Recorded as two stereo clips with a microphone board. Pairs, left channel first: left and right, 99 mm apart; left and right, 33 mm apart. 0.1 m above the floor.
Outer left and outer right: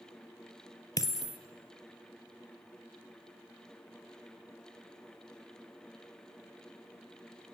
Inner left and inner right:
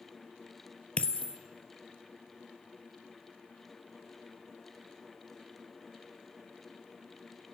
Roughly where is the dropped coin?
Left.